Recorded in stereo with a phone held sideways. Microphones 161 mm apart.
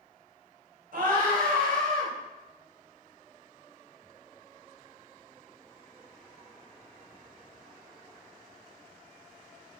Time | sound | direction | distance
0.9 | a scream | 75° right (ahead or behind) | 4 m